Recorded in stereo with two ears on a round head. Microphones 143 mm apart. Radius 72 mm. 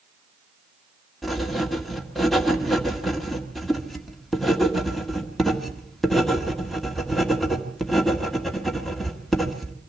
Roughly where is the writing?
Centre.